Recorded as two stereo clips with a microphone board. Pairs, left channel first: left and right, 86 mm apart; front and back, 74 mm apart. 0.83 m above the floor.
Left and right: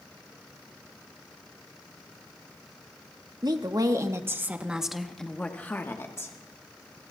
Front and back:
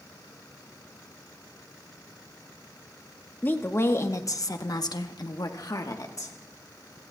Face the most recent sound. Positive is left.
turn(degrees=35)